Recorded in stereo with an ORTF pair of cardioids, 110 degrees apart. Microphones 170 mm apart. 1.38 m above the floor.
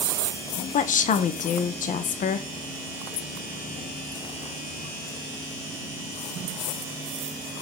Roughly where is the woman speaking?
Ahead left.